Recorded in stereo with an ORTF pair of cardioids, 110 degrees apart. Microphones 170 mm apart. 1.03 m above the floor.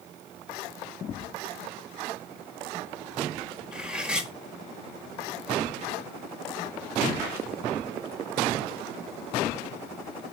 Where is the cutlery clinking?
5° right, 1.1 m.